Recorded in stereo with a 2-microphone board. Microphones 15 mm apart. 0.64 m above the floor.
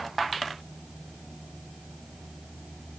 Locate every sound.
Only background noise.